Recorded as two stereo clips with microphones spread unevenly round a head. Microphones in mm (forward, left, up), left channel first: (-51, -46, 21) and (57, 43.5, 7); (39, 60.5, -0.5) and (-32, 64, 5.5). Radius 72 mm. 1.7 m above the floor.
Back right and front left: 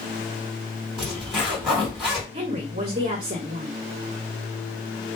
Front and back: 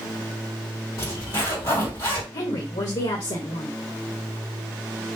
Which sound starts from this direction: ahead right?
A zipper, at 1.0 s.